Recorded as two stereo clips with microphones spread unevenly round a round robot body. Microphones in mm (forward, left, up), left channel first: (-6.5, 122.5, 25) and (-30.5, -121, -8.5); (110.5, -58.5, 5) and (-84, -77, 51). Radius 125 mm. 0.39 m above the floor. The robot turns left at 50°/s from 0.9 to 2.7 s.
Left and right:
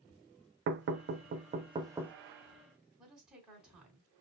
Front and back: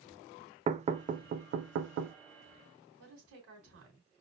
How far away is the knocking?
About 0.7 m.